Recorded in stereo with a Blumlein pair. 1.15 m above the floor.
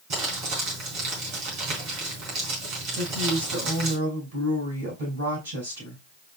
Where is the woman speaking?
65° right, 5.5 m.